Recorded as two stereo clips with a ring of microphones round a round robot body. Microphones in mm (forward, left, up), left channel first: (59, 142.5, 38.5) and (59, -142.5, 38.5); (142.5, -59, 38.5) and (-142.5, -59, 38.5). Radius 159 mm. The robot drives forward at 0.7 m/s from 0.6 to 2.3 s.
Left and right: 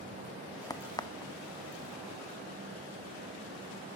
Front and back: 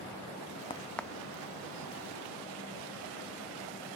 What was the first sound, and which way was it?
A crack, 35° left.